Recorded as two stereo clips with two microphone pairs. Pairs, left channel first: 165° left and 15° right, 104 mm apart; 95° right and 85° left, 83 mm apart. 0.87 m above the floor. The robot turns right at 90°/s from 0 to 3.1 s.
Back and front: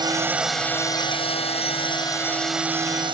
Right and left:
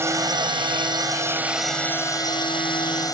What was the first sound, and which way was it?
A drone, 30° left.